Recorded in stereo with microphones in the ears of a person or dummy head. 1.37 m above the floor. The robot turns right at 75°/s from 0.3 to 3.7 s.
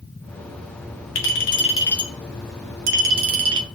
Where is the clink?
110° left, 1.9 m; by 3.7 s 65° right, 1.9 m.